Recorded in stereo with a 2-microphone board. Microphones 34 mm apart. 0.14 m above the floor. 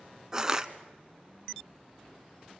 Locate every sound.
0.3 s crushing: 20° right (ahead or behind), 0.9 m